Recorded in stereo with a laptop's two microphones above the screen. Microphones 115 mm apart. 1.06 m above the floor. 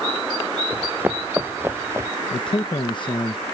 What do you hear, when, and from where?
0.7 s running footsteps: 15° right (ahead or behind); by 2.1 s 20° right (ahead or behind)
2.3 s a man speaking: 45° left (ahead or behind)